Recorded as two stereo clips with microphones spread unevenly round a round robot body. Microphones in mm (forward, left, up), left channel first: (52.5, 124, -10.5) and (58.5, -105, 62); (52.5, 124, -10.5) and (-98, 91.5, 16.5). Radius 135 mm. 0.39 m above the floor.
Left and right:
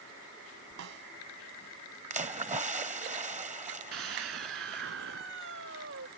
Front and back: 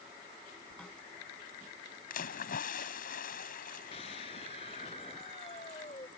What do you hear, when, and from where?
0.8 s a snare drum: 75° right
2.1 s a splash: 25° right
3.9 s a scream: 55° right